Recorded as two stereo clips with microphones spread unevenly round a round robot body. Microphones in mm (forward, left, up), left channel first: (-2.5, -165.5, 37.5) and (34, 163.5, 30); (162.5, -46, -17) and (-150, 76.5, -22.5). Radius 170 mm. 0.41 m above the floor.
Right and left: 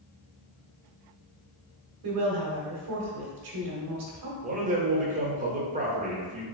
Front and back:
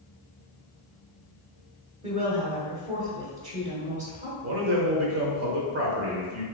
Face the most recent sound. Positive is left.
turn(degrees=140)